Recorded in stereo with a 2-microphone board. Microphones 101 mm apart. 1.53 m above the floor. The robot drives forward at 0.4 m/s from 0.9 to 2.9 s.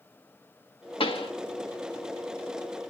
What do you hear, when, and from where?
1.0 s a pop: 65° left (ahead or behind), 1.5 m